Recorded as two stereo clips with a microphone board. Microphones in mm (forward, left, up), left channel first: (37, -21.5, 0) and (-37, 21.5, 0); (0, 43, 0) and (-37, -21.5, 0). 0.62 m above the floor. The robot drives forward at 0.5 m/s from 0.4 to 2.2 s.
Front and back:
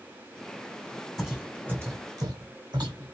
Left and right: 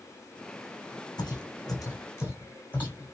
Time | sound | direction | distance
1.2 | footsteps | 60° left | 1.5 m